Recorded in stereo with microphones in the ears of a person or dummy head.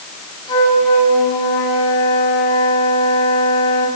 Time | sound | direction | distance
0.5 | a flute | 30° left (ahead or behind) | 8 m